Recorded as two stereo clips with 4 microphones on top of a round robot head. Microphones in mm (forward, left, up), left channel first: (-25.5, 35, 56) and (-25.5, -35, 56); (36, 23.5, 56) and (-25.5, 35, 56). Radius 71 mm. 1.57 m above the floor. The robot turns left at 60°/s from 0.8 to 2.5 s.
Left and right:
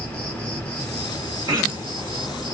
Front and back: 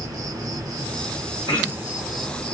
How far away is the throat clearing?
About 1.7 m.